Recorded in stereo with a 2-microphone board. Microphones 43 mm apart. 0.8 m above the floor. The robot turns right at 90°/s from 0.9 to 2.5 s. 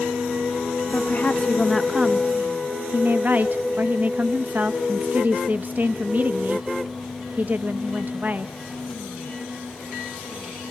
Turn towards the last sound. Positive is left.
turn(degrees=-115)